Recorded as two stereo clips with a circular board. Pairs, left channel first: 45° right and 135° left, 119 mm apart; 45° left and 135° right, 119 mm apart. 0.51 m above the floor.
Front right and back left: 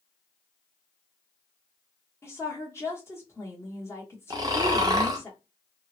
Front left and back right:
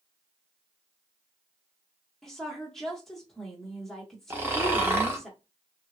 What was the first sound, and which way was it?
A woman speaking, 40° right.